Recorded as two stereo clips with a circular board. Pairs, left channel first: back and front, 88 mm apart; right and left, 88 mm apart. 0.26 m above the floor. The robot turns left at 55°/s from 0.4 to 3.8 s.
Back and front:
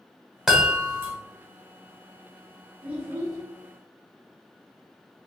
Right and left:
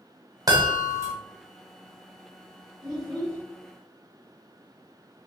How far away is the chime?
About 1.3 m.